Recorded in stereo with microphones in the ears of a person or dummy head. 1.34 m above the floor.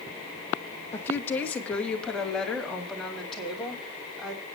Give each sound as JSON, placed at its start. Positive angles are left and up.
{"t": 0.9, "sound": "a woman speaking", "side_deg": 15, "distance_m": 1.7}